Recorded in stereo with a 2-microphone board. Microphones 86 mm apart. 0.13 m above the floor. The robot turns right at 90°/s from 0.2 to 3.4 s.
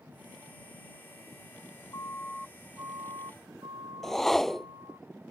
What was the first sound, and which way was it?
A siren, 40° left (ahead or behind).